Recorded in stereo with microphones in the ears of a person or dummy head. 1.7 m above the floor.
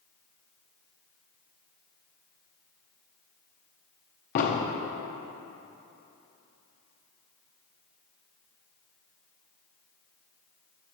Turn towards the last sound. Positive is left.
turn(degrees=45)  # may be behind; listen again after turning